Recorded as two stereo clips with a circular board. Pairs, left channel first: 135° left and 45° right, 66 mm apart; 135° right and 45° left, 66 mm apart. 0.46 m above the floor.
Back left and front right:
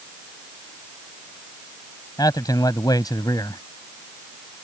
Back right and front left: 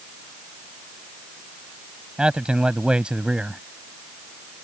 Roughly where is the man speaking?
Behind left.